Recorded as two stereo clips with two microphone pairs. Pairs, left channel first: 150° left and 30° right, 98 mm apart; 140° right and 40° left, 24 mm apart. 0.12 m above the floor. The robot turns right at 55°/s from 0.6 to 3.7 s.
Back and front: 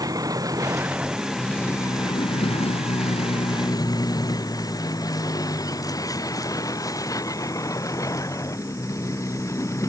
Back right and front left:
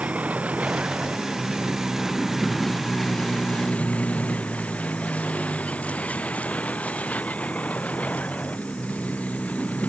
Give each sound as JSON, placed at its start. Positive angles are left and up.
{"t": 0.0, "sound": "a vehicle", "azimuth_deg": 20}